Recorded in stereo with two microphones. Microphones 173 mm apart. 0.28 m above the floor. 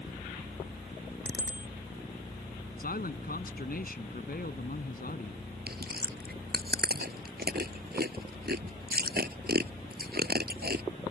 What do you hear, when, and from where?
1.2 s a bicycle bell: 85° left
2.8 s a man speaking: 60° left (ahead or behind)
5.7 s chewing: 65° right (ahead or behind)